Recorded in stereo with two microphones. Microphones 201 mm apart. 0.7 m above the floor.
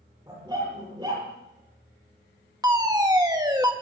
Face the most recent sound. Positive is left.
turn(degrees=-20)  # may be behind; listen again after turning